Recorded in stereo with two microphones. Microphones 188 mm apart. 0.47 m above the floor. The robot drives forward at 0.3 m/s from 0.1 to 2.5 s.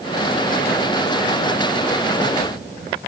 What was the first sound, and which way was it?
Only background noise.